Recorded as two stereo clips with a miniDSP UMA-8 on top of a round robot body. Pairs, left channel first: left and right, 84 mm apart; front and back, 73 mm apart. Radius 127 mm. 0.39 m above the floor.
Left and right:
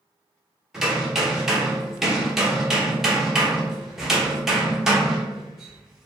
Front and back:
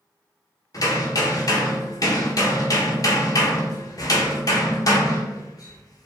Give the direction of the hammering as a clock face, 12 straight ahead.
12 o'clock.